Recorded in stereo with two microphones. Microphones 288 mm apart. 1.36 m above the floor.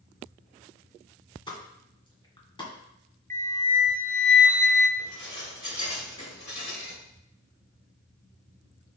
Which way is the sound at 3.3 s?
25° right (ahead or behind).